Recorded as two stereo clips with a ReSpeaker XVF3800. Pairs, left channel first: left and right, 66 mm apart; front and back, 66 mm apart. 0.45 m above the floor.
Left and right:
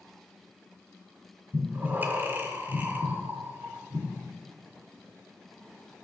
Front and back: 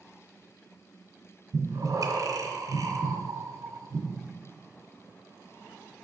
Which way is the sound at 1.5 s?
150° right.